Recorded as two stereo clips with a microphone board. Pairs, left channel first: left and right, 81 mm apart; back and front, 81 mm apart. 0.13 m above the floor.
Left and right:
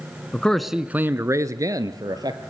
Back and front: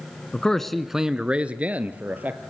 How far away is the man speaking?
About 1.0 m.